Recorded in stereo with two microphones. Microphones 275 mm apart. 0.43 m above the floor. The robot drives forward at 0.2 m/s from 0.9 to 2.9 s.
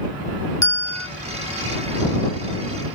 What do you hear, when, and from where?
0.6 s a bell: 70° left (ahead or behind), 1.0 m